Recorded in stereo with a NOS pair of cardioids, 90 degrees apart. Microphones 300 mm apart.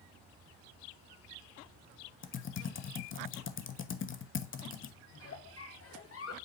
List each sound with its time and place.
2.2 s typing on a keyboard: 40° left, 1.0 m
5.1 s a giggle: 45° left, 1.9 m